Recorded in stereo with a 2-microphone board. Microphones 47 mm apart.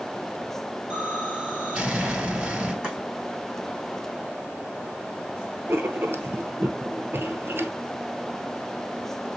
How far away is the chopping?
About 4 m.